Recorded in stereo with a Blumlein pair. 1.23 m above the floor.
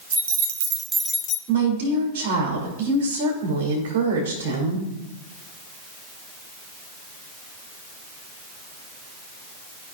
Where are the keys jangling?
70° right, 1.0 m; by 1.4 s 35° left, 0.7 m.